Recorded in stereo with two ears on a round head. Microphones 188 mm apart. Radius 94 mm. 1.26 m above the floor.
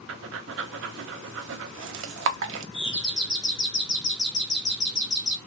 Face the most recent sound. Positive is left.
turn(degrees=60)  # may be behind; listen again after turning